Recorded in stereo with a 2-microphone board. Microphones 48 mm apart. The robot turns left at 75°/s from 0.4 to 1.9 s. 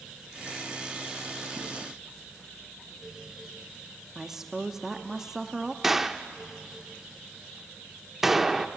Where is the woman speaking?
15° right (ahead or behind), 0.7 m.